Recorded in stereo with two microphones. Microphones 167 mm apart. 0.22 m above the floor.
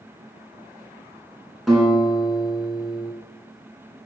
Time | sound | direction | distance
1.7 | a guitar | centre (ahead or behind) | 3 m